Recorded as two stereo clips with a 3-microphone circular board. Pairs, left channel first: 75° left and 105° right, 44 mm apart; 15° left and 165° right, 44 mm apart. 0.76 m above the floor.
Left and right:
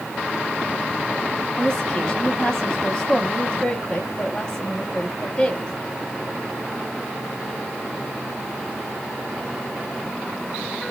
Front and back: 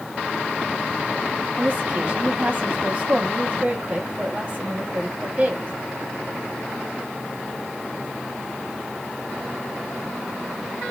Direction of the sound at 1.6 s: 135° left.